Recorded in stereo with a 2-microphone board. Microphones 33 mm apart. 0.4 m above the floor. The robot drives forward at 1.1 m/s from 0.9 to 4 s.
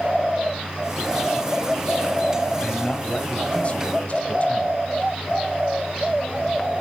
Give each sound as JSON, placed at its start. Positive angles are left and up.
{"t": 2.6, "sound": "a man speaking", "side_deg": 25, "distance_m": 3.5}